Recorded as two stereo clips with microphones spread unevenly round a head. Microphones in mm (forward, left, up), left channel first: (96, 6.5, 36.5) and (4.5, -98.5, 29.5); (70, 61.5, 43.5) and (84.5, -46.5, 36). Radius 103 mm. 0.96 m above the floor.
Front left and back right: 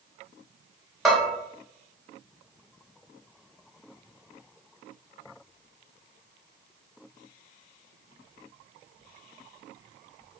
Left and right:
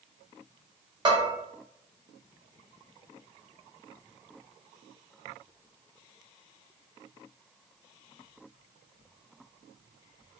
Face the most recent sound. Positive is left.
turn(degrees=-40)